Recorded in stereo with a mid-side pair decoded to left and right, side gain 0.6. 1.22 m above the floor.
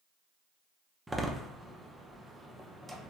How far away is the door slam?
About 0.6 m.